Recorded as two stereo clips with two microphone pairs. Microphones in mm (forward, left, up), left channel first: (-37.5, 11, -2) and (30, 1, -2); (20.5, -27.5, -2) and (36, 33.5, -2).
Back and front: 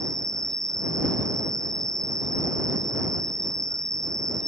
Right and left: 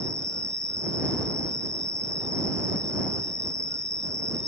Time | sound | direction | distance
0.0 | an insect | 90° left | ?